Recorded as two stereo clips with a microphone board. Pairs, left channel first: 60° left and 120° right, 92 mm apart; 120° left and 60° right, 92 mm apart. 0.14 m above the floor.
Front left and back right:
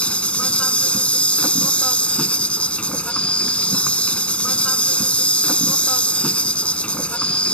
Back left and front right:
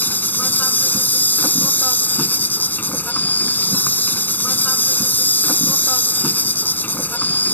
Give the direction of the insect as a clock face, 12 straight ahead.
8 o'clock.